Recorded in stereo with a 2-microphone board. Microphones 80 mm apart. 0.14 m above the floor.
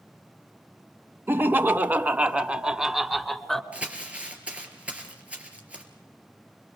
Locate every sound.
1.3 s laughter: 30° right (ahead or behind), 1.2 m; by 3.6 s centre (ahead or behind), 1.3 m
3.7 s crumpling: 15° right (ahead or behind), 3.5 m